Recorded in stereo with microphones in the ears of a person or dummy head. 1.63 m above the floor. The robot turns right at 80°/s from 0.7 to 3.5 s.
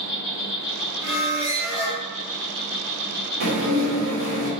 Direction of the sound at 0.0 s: 65° left.